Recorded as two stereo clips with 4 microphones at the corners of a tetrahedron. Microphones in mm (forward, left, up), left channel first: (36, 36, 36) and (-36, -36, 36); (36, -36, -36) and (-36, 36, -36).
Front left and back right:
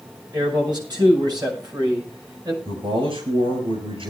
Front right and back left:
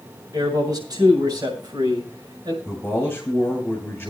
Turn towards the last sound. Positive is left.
turn(degrees=-115)